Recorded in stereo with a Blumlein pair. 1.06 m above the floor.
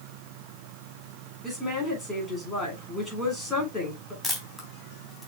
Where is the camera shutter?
5° left, 3 m.